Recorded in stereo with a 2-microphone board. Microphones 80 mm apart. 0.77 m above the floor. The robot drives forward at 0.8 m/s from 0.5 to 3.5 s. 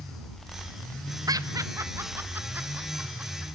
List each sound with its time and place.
1.3 s laughter: 50° right (ahead or behind), 0.7 m; by 3.5 s 15° right (ahead or behind), 1.9 m